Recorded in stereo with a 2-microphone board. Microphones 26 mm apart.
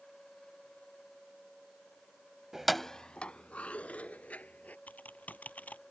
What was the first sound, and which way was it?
Keys jangling, 15° right (ahead or behind).